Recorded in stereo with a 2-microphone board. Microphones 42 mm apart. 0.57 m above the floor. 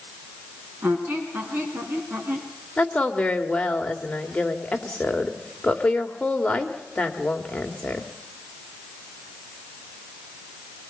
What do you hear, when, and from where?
0.8 s a squeak: 60° right (ahead or behind), 3.5 m
2.8 s a woman speaking: 30° left (ahead or behind), 2 m